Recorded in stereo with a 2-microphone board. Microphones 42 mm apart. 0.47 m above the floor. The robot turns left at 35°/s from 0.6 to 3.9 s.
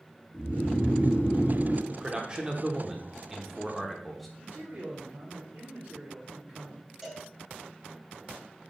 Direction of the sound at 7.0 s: 10° right (ahead or behind).